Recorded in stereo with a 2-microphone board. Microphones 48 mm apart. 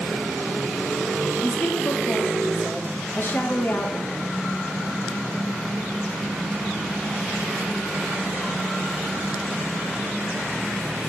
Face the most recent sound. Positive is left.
turn(degrees=45)  # may be behind; listen again after turning